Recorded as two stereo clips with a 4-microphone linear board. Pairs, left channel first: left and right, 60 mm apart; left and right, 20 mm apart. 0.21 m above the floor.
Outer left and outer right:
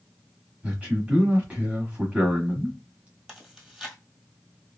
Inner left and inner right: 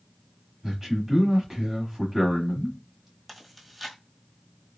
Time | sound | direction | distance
0.6 | a man speaking | 20° right (ahead or behind) | 1.1 m
3.3 | chewing | 15° right (ahead or behind) | 1.2 m